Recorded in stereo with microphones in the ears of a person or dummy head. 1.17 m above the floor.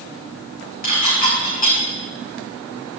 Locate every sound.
0.8 s dishes clattering: 45° left (ahead or behind), 5.5 m